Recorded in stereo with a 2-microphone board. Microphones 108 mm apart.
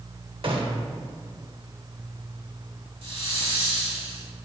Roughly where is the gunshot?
Right.